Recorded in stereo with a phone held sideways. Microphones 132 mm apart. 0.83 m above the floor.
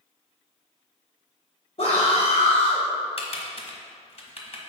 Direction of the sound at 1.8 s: 55° left (ahead or behind).